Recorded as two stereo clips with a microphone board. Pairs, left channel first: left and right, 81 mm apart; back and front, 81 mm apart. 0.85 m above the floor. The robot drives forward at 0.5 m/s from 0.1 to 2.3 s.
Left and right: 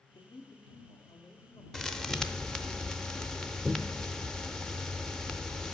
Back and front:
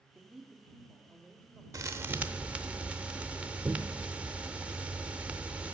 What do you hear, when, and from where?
0.1 s a man speaking: 80° left, 1.3 m; by 1.6 s 110° left, 1.4 m
1.7 s a thud: 10° left, 0.6 m; by 5.7 s 30° left, 0.5 m